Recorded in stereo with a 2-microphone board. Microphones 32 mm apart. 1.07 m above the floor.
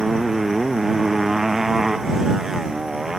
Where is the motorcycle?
10° right (ahead or behind); by 3.2 s 15° right (ahead or behind).